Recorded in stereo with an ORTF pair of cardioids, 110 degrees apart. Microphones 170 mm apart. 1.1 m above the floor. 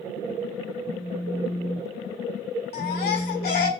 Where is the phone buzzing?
10° right, 4 m.